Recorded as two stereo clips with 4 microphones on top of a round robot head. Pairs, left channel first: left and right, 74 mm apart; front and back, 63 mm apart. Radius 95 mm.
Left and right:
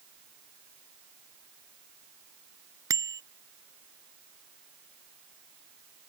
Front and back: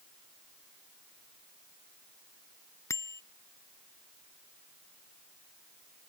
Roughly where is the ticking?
No ticking in this recording.